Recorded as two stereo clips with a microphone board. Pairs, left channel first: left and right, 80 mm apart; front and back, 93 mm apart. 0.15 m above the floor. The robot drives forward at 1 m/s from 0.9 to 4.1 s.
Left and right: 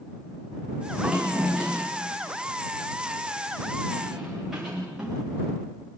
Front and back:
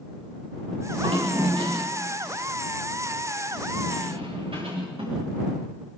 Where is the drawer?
175° right, 8.5 m.